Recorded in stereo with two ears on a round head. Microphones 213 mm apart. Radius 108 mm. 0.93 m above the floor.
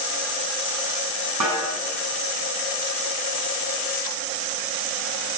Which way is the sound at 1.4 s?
85° right.